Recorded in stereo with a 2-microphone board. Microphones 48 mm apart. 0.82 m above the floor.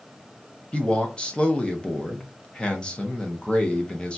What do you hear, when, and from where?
0.7 s a man speaking: 20° left (ahead or behind), 0.6 m